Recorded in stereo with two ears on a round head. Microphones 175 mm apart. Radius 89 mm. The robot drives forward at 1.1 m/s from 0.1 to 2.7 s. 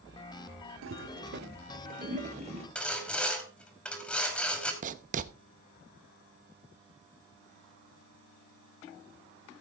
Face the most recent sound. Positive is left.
turn(degrees=-40)  # may be behind; listen again after turning